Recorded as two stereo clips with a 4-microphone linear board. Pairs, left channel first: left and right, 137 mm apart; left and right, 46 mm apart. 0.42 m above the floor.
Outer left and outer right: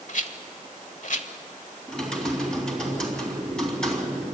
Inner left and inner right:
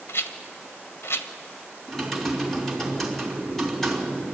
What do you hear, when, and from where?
0.1 s a rattle: 65° left (ahead or behind), 1.1 m
1.9 s typing on a keyboard: 5° left (ahead or behind), 3 m